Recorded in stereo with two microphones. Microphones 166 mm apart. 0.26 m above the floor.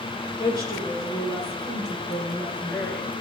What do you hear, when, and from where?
0.4 s a woman speaking: 25° left (ahead or behind), 4.5 m; by 3.1 s 15° left (ahead or behind), 2.5 m